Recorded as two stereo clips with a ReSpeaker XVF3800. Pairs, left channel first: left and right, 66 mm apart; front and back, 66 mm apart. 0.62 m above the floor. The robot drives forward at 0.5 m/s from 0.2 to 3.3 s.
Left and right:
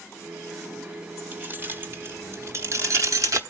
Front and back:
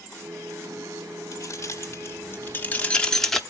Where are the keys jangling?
30° right, 1.3 m; by 3.4 s 80° right, 0.8 m.